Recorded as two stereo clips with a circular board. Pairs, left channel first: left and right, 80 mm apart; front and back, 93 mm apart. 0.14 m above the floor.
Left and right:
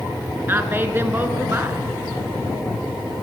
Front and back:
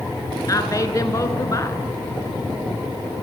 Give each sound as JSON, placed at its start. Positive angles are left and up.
{"t": 0.5, "sound": "a woman speaking", "azimuth_deg": -35, "distance_m": 1.8}